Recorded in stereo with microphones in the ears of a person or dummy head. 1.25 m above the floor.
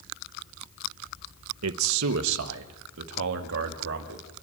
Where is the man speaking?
75° right (ahead or behind), 0.9 m; by 4.2 s 65° right (ahead or behind), 2.5 m.